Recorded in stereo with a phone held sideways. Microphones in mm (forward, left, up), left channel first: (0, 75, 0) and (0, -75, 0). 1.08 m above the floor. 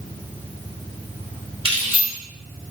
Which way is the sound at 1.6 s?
35° right (ahead or behind).